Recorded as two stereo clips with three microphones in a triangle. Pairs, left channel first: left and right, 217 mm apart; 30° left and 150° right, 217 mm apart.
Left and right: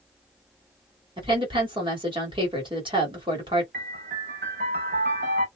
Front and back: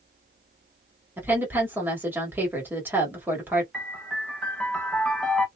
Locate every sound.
1.2 s a woman speaking: 85° right, 1.4 m
3.7 s a piano: 60° right, 0.9 m